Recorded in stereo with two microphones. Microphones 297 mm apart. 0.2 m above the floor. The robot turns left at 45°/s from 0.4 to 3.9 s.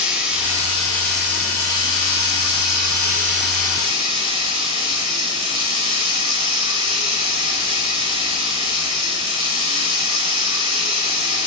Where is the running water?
5° right, 2.5 m; by 11.5 s 160° right, 2.5 m.